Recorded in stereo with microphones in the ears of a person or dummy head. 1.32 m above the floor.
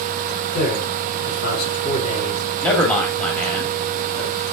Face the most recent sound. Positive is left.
turn(degrees=10)  # may be behind; listen again after turning